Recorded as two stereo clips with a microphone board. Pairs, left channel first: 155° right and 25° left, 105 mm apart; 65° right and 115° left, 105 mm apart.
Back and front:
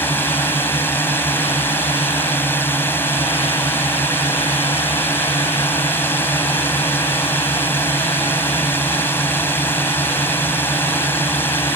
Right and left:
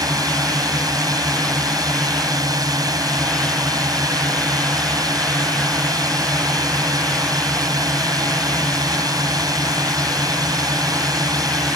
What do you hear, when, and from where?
0.0 s a drone: 145° left